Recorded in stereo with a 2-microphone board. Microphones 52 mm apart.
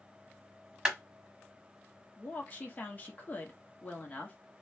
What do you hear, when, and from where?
0.8 s a clap: 15° right (ahead or behind), 1.1 m
2.2 s a woman speaking: 30° left (ahead or behind), 1.1 m